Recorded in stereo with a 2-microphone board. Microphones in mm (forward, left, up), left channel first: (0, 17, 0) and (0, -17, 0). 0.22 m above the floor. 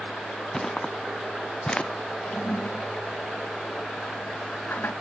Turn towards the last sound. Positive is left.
turn(degrees=65)  # may be behind; listen again after turning